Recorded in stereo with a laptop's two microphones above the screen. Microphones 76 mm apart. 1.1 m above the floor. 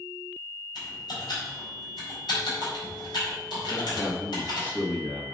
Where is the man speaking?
25° left (ahead or behind), 1.4 m.